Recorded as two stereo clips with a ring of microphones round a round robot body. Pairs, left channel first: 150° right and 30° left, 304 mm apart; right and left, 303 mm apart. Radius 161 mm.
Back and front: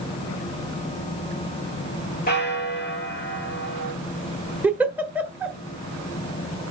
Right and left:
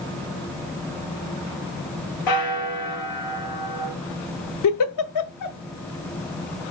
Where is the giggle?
55° right, 1.0 m.